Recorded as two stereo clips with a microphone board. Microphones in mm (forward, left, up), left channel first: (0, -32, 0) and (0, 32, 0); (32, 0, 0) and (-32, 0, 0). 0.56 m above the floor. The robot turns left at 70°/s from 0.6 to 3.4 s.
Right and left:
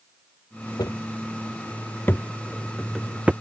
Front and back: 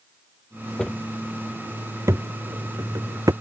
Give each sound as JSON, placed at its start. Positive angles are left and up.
{"t": 0.8, "sound": "footsteps", "azimuth_deg": -75}